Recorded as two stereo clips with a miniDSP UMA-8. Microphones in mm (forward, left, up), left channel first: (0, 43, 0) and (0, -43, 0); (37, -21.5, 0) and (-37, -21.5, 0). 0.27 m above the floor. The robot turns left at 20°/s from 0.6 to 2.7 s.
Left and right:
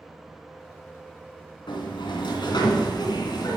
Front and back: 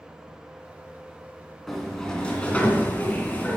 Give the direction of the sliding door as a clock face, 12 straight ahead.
9 o'clock.